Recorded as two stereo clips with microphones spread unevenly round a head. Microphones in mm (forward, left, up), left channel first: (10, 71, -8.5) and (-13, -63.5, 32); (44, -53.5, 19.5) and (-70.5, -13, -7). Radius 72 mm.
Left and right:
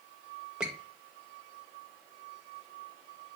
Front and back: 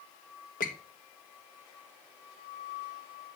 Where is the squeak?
15° right, 2 m.